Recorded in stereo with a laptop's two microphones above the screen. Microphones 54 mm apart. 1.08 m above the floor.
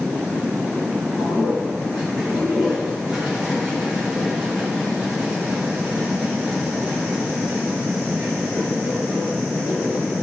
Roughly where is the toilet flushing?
Centre.